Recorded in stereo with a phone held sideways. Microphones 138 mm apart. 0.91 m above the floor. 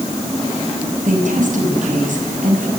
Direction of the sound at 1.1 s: 70° right (ahead or behind).